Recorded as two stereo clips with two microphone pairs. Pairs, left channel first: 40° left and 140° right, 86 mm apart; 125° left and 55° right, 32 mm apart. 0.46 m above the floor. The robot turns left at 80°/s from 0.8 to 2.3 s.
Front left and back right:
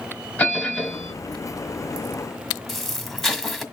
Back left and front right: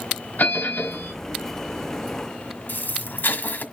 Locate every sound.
0.4 s a bell: 110° left, 3 m; by 1.1 s 85° left, 3 m
2.7 s an explosion: 130° left, 1.7 m